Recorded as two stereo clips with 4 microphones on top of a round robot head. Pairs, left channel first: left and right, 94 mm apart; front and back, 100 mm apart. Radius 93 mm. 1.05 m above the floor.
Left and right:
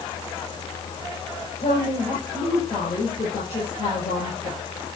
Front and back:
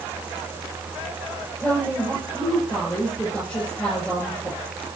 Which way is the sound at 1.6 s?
80° left.